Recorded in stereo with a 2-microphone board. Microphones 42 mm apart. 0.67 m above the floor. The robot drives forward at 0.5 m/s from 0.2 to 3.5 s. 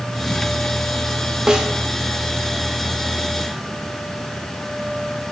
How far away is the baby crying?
I don't hear a baby crying.